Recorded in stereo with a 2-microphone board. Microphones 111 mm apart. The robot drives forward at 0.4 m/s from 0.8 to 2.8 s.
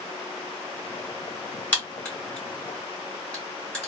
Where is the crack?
15° left (ahead or behind), 1.6 m; by 3.9 s 10° left (ahead or behind), 2 m.